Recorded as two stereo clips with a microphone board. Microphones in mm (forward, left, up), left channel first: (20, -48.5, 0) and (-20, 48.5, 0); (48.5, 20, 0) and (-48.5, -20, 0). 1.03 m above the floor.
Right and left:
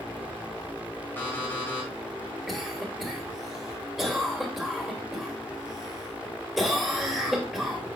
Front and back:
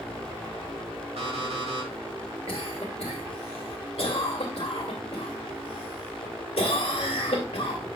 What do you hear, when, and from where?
1.2 s an alarm clock: 140° right, 2.5 m
2.5 s a cough: 25° left, 2 m